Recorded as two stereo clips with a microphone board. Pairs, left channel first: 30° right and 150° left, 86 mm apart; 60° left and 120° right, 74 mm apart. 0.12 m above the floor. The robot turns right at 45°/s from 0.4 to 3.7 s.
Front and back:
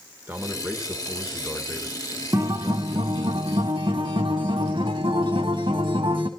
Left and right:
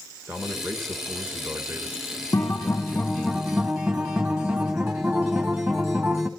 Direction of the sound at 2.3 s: 95° left.